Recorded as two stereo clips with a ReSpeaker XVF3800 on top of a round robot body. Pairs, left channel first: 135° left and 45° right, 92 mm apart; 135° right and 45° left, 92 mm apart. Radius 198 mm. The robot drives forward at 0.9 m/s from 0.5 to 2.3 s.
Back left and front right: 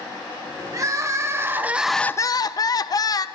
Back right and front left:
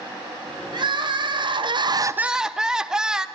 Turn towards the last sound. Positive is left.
turn(degrees=125)